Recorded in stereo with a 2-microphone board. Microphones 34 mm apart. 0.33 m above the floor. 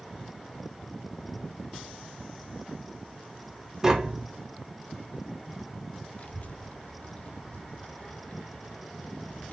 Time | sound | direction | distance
3.8 | tapping | 20° right (ahead or behind) | 0.9 m
6.2 | a child speaking | 45° left (ahead or behind) | 0.9 m